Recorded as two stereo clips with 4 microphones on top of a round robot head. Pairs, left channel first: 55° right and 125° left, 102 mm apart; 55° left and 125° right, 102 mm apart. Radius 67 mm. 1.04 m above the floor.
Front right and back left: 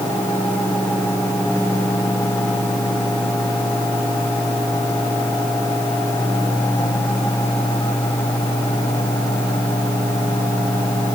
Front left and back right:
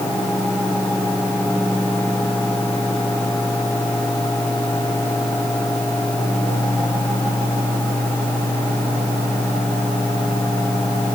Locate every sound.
Only background noise.